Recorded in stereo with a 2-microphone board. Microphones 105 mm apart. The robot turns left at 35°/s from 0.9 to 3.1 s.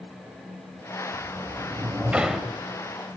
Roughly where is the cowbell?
No cowbell in this recording.